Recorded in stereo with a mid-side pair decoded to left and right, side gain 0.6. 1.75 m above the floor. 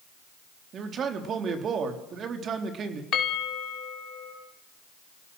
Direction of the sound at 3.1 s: 50° left.